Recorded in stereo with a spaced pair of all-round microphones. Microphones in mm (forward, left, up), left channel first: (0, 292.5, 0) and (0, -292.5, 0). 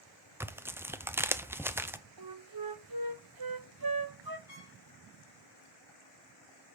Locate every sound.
0.4 s tearing paper: 5° right (ahead or behind), 0.6 m
2.2 s a flute: 40° right (ahead or behind), 0.8 m
4.5 s a trumpet: 35° right (ahead or behind), 4.5 m